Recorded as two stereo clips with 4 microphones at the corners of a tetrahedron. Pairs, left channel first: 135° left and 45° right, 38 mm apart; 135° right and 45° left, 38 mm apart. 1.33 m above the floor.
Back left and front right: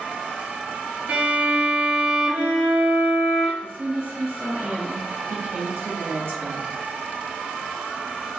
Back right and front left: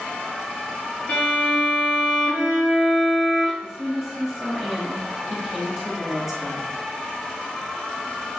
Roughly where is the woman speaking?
Ahead right.